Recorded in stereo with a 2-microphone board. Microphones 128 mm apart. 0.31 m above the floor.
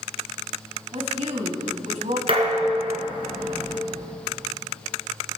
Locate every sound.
0.9 s a woman speaking: 60° right (ahead or behind), 2 m
2.3 s dishes clattering: 45° right (ahead or behind), 2.5 m